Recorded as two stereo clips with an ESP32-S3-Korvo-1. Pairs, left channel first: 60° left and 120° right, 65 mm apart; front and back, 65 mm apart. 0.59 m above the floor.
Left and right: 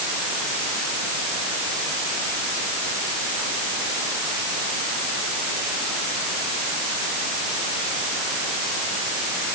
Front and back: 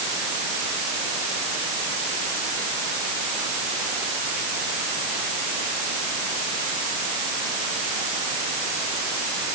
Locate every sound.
Only background noise.